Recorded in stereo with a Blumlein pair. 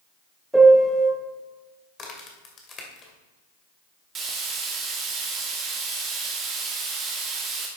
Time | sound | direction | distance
0.5 | a piano | 5° right | 1.9 m
2.0 | a crack | 25° left | 2.5 m
4.2 | frying | 25° right | 1.8 m